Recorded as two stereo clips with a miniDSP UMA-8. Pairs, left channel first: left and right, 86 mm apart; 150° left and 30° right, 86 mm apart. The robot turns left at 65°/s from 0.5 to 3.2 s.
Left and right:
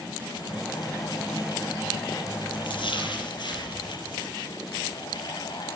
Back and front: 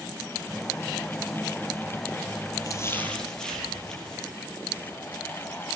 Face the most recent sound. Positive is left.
turn(degrees=70)